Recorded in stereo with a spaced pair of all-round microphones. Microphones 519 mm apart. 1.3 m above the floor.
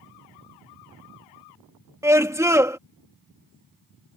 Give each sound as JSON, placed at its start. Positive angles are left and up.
{"t": 2.0, "sound": "a scream", "side_deg": -5}